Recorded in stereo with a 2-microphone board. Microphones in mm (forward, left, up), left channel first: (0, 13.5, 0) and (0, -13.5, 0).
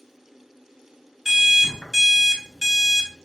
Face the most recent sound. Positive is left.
turn(degrees=-5)  # may be behind; listen again after turning